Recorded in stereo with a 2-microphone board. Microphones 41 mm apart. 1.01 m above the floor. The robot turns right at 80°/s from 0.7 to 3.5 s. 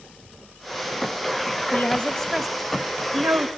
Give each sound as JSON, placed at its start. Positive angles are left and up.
{"t": 1.7, "sound": "a woman speaking", "side_deg": 45, "distance_m": 1.8}